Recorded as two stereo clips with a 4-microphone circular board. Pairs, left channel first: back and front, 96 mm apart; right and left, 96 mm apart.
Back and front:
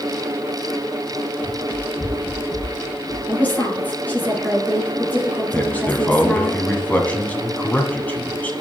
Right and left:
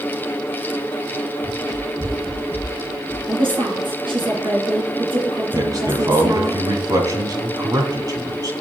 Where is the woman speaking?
110° left, 3 m.